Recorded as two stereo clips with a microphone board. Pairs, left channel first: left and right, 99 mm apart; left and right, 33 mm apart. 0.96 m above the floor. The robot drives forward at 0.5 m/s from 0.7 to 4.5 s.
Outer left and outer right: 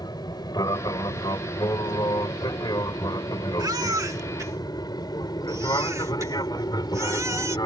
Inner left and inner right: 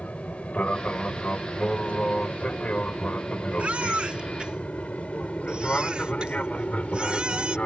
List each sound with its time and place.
0.0 s an aircraft: 40° left (ahead or behind)
3.6 s a baby crying: 40° right (ahead or behind); by 7.6 s 30° right (ahead or behind)